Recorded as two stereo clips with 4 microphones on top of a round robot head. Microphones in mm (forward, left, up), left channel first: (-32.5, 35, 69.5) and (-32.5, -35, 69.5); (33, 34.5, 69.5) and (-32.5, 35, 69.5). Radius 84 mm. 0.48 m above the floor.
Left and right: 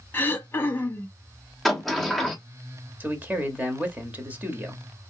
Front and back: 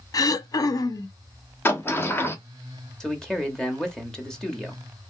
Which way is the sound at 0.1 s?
25° left.